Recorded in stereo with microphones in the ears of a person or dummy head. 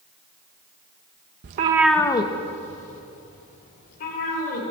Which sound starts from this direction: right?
A cat meowing, at 1.4 s.